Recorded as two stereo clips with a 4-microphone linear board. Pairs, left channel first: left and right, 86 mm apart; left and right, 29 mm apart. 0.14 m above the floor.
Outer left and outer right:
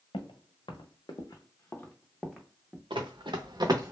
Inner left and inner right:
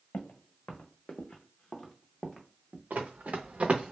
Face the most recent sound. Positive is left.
turn(degrees=-35)  # may be behind; listen again after turning